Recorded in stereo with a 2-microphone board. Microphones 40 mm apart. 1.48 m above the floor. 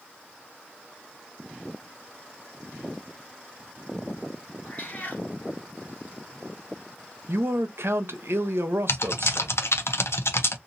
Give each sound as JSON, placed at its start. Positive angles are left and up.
{"t": 4.6, "sound": "a cat meowing", "side_deg": 40, "distance_m": 1.8}
{"t": 7.3, "sound": "a man speaking", "side_deg": -70, "distance_m": 0.7}
{"t": 8.9, "sound": "typing on a keyboard", "side_deg": 80, "distance_m": 0.7}